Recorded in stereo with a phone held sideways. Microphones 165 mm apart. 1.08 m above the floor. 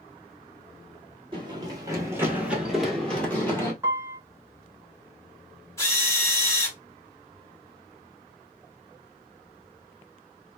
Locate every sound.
1.3 s running footsteps: 30° right (ahead or behind), 1.2 m; by 3.7 s 15° left (ahead or behind), 1.4 m
3.8 s a piano: 15° right (ahead or behind), 0.9 m
5.8 s a drill: 15° left (ahead or behind), 1.0 m